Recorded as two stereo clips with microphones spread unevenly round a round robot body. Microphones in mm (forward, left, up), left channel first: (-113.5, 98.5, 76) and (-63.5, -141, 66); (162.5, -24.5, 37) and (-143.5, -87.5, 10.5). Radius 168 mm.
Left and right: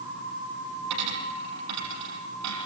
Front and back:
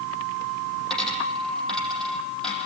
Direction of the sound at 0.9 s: 75° right.